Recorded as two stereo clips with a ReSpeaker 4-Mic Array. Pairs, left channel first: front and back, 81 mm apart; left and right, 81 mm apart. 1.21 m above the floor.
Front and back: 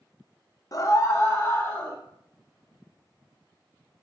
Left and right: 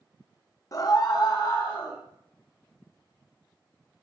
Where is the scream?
45° left, 0.9 m; by 2.0 s 65° left, 2 m.